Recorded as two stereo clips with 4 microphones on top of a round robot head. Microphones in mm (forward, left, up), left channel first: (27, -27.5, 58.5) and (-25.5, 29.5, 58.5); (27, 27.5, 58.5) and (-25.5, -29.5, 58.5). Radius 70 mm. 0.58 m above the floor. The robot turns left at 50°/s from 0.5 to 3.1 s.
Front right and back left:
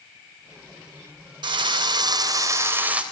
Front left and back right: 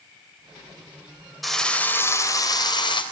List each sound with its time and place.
1.4 s a drill: 135° left, 3.5 m; by 3.0 s 55° left, 3.5 m